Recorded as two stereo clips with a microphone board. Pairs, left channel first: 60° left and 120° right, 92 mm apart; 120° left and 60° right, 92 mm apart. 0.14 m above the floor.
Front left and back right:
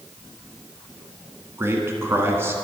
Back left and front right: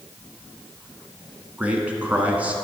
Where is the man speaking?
115° right, 1.1 m.